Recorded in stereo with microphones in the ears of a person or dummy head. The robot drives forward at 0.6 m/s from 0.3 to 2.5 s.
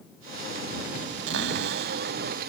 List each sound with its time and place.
1.3 s a cupboard door: 75° right (ahead or behind); by 2.5 s 70° right (ahead or behind)